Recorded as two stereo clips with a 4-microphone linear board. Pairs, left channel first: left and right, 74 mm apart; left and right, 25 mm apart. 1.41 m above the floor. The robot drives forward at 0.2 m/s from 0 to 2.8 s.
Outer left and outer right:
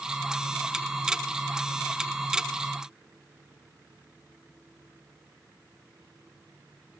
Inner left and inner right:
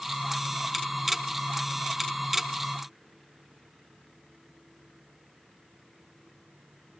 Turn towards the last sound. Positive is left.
No sound to turn to.